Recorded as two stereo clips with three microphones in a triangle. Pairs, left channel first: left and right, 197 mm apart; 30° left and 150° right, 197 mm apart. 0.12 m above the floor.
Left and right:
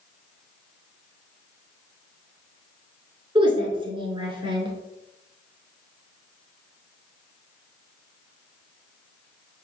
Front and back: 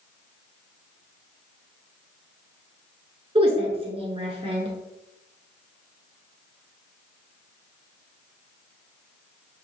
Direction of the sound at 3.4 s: 125° right.